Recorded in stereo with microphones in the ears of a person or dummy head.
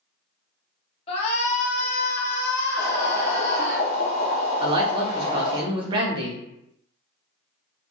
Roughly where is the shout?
Left.